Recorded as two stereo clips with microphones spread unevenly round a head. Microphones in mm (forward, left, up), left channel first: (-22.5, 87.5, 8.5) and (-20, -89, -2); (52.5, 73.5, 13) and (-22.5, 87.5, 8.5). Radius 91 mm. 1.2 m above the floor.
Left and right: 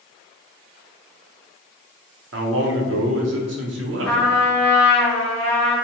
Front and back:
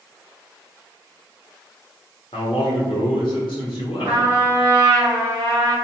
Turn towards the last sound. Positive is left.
turn(degrees=170)